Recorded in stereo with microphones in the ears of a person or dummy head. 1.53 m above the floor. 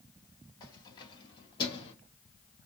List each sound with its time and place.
0.6 s keys jangling: 25° left (ahead or behind), 2.0 m; by 1.9 s 30° left (ahead or behind), 1.3 m